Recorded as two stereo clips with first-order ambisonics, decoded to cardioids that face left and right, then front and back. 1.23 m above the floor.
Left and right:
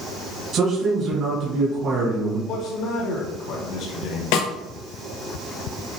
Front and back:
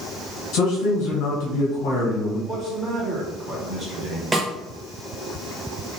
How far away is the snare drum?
About 0.8 m.